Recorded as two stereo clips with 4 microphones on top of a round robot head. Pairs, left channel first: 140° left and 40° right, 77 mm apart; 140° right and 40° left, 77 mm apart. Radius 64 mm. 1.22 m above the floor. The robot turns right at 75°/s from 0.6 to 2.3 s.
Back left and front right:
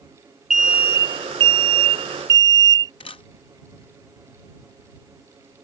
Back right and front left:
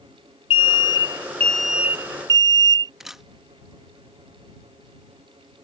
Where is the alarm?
125° right; by 2.9 s straight ahead.